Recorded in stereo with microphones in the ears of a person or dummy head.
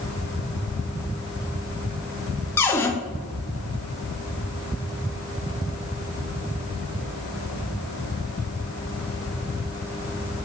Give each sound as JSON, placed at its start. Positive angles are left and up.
{"t": 2.6, "sound": "a cupboard door", "side_deg": 15, "distance_m": 0.5}